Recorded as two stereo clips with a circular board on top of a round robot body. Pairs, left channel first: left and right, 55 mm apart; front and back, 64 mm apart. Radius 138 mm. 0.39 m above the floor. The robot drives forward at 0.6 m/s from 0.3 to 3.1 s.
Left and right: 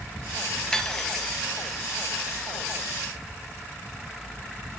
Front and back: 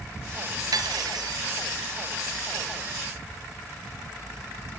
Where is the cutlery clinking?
170° left, 2 m; by 1.4 s 175° left, 2.5 m.